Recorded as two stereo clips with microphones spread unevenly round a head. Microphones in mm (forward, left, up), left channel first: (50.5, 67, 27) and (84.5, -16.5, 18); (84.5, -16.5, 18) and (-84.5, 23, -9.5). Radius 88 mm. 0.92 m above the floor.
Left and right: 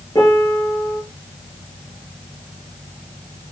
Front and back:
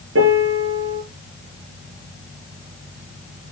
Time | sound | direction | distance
0.1 | a piano | 170° right | 5.5 m